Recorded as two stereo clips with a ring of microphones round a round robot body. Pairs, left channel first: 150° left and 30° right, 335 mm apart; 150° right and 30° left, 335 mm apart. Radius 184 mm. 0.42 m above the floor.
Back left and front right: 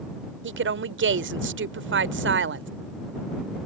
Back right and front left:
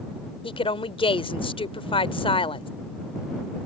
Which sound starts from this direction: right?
A woman speaking, at 0.4 s.